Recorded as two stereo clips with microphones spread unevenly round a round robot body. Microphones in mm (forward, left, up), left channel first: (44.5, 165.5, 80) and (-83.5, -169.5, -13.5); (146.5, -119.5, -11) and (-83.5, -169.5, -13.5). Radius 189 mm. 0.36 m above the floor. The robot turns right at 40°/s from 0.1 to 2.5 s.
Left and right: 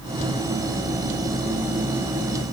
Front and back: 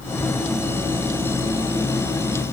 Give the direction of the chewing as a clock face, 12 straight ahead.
I don't hear chewing.